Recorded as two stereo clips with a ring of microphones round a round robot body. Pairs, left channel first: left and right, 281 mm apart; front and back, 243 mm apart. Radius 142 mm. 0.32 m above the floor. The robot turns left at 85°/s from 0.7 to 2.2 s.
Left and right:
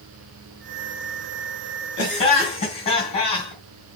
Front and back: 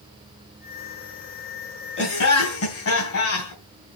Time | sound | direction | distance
2.0 | laughter | 40° left | 3.5 m